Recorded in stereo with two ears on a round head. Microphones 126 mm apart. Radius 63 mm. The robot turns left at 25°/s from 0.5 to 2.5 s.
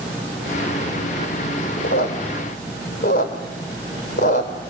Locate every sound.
1.8 s a squeak: 75° left (ahead or behind), 3 m; by 4.5 s 60° left (ahead or behind), 3 m